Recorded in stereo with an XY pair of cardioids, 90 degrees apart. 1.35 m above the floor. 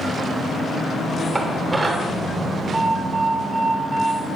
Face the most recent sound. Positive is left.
turn(degrees=-15)